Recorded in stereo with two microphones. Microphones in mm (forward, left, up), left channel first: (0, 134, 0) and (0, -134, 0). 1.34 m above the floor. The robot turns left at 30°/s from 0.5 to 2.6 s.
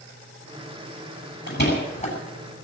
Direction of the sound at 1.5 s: 45° left (ahead or behind).